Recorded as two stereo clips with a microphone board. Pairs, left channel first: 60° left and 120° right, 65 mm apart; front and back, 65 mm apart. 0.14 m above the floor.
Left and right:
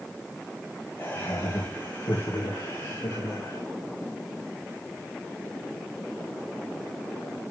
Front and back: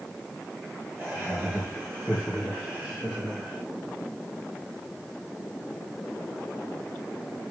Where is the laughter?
95° left, 3.5 m; by 3.6 s 80° left, 4.5 m.